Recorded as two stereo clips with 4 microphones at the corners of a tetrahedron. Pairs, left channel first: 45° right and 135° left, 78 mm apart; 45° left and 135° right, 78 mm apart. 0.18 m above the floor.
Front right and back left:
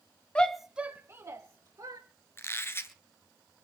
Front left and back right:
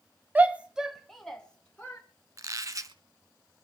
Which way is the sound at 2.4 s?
100° right.